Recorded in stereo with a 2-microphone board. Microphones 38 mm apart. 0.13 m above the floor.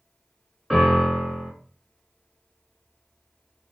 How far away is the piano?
About 1.3 m.